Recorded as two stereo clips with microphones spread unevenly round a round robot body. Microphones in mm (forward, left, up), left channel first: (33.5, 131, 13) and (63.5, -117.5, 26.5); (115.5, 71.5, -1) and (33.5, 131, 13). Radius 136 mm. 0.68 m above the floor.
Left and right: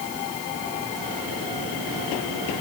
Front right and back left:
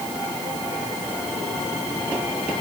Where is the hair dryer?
No hair dryer in this recording.